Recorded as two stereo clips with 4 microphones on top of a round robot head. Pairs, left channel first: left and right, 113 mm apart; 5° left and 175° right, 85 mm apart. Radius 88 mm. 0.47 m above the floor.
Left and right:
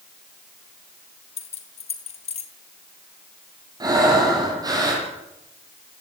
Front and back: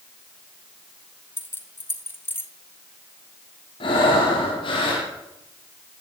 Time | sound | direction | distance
1.4 | keys jangling | 65° left | 3 m
3.8 | breathing | 35° right | 8.5 m